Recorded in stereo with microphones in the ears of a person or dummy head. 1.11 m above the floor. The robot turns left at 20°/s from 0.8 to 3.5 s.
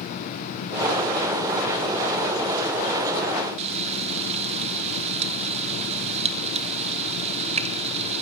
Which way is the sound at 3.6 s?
30° right (ahead or behind).